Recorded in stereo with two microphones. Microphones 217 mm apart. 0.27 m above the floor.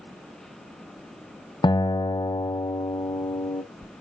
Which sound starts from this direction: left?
A guitar, at 1.6 s.